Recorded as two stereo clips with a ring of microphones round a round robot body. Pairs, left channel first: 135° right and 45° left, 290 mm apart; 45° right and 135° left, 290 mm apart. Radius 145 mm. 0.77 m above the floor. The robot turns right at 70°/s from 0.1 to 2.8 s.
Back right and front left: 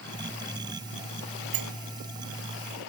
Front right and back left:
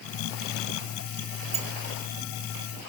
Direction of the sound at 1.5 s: 65° left.